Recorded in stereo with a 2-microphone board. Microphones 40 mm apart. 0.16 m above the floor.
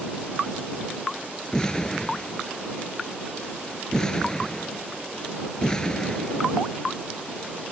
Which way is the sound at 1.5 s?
15° left (ahead or behind).